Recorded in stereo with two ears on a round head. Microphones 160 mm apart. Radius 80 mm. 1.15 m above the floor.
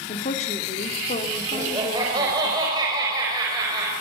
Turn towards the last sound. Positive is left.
turn(degrees=-20)  # may be behind; listen again after turning